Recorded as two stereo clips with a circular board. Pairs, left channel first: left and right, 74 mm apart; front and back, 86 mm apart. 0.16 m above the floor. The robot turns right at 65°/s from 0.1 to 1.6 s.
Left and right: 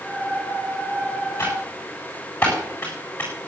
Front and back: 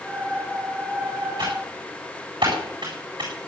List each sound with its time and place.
1.4 s typing on a keyboard: 145° left, 9 m; by 3.3 s 160° left, 9 m